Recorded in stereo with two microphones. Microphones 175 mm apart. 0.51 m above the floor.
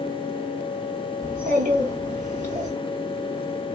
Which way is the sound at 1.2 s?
55° right (ahead or behind).